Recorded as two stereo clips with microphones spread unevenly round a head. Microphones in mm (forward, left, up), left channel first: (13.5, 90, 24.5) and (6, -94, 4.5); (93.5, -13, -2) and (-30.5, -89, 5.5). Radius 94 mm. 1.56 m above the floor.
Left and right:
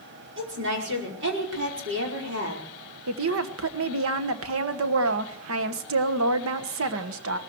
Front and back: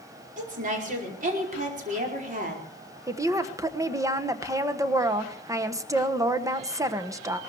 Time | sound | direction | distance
0.4 | a woman speaking | 120° right | 5 m
3.1 | a woman speaking | 80° right | 1.3 m